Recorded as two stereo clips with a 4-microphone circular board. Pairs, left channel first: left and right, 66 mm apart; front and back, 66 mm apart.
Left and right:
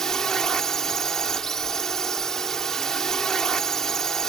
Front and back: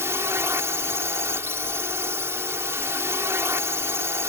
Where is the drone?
170° left.